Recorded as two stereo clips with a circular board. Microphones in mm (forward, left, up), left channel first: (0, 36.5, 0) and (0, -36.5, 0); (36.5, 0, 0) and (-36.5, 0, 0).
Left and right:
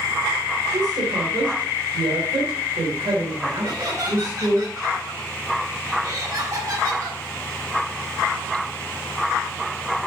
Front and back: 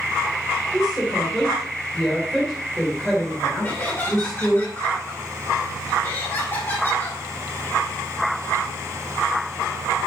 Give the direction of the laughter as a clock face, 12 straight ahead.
2 o'clock.